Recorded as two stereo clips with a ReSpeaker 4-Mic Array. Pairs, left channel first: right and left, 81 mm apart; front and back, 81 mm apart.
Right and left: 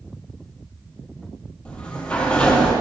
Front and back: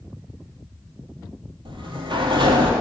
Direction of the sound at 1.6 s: 165° right.